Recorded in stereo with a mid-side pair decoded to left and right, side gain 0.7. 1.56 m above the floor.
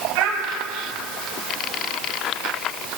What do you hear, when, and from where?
0.1 s a child speaking: 60° right, 1.9 m